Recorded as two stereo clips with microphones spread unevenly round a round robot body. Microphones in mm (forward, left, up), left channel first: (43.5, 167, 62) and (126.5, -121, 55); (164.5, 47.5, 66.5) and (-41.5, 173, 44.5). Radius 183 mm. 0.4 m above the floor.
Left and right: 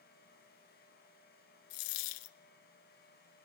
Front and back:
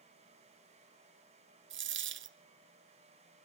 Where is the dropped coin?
105° left, 0.7 m.